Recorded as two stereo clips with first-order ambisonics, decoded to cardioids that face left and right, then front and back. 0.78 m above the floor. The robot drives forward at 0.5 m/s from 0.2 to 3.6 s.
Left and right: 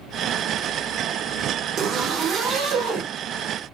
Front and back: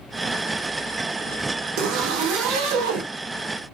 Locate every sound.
1.8 s a zipper: 150° right, 1.1 m; by 3.1 s 160° right, 1.7 m